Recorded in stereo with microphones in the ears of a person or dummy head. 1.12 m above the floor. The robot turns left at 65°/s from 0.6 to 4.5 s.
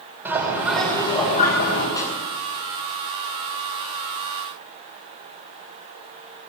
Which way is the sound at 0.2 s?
175° right.